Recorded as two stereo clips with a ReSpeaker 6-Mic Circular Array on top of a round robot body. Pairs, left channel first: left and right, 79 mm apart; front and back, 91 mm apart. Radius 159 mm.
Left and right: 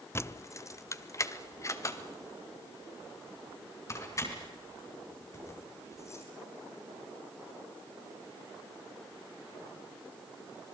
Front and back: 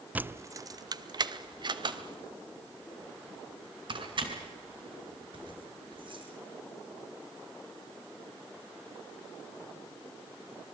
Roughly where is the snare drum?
No snare drum in this recording.